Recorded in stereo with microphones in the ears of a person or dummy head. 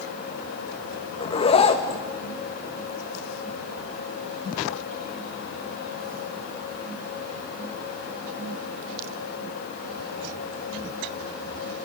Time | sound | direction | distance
1.2 | a zipper | 30° left (ahead or behind) | 1.8 m